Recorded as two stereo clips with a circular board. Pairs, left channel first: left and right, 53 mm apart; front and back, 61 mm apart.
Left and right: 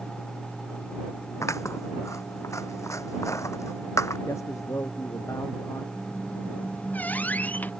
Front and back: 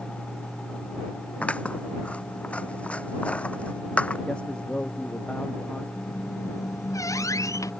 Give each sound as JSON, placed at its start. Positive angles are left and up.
{"t": 1.4, "sound": "scissors", "azimuth_deg": 70}
{"t": 4.3, "sound": "a man speaking", "azimuth_deg": 75}
{"t": 6.0, "sound": "a squeak", "azimuth_deg": 30}